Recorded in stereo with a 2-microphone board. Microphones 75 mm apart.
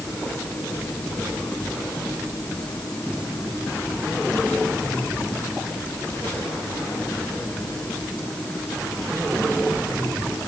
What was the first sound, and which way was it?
Only background noise.